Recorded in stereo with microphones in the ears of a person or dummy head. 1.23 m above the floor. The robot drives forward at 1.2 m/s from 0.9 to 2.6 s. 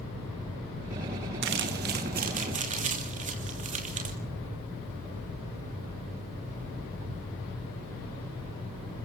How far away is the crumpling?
About 2.5 m.